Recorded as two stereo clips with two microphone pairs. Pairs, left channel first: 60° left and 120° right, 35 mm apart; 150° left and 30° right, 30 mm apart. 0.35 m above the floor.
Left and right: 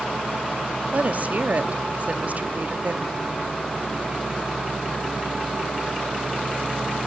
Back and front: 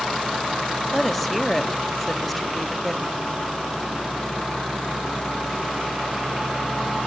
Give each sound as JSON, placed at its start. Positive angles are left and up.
{"t": 0.9, "sound": "a woman speaking", "azimuth_deg": -125, "distance_m": 1.1}